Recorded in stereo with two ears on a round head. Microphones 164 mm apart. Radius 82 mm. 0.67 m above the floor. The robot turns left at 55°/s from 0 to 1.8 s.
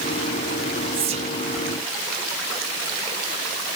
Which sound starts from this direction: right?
Whispering, at 0.9 s.